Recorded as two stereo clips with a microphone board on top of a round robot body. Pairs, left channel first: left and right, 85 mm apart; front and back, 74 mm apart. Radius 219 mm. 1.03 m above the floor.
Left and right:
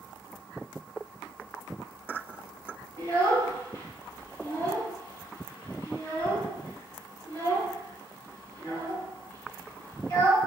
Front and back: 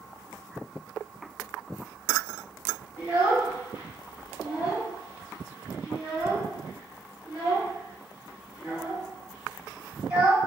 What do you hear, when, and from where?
3.0 s a child speaking: 120° left, 1.7 m